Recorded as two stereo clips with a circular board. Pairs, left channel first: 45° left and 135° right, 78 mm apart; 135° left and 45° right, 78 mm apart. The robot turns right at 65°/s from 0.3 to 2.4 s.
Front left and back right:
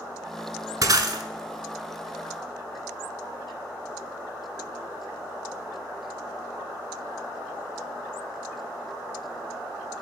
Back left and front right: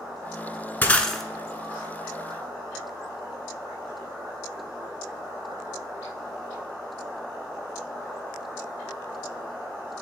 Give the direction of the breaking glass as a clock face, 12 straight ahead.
5 o'clock.